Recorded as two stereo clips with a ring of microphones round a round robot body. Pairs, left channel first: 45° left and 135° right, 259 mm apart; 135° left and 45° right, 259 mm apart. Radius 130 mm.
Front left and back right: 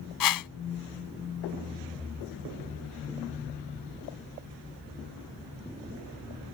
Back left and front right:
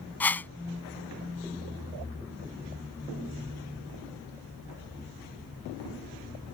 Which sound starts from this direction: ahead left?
A whoosh, at 0.2 s.